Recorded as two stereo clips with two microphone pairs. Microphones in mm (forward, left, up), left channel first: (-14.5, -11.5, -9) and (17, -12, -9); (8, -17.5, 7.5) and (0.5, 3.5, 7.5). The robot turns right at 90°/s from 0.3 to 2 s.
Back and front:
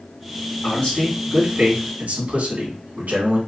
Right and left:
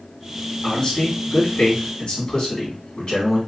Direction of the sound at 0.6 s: 130° right.